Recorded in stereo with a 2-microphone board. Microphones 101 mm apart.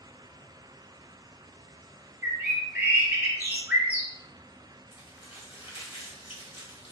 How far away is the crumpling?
About 1.1 m.